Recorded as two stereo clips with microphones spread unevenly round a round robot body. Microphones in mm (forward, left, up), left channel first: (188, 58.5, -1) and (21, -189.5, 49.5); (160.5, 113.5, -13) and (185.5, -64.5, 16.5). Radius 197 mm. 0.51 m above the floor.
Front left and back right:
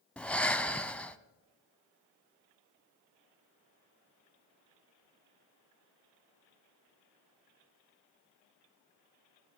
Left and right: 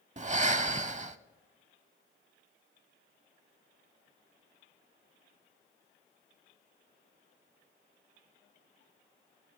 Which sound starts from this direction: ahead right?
Breathing, at 0.2 s.